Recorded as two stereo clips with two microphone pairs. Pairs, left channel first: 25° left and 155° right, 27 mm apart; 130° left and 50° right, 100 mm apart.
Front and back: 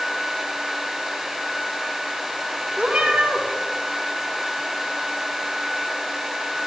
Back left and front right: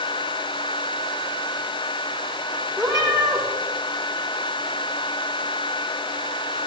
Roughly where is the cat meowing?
Right.